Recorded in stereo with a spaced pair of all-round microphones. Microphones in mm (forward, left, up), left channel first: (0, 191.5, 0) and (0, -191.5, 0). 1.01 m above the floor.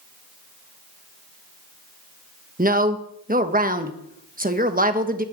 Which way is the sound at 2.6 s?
20° right (ahead or behind).